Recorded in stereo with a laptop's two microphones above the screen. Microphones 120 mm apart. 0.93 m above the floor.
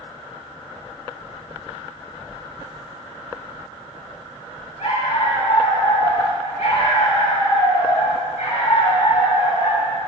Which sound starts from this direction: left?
A dog barking, at 4.8 s.